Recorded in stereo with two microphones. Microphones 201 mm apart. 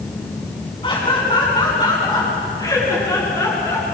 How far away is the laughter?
About 7.5 m.